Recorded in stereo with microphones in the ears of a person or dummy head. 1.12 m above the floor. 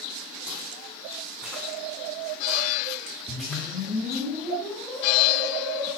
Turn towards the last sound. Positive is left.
turn(degrees=10)  # may be behind; listen again after turning